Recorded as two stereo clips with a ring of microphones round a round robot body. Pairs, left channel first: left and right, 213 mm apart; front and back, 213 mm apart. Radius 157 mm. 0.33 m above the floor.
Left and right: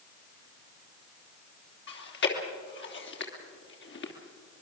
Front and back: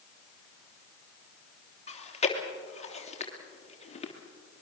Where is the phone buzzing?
I don't hear a phone buzzing.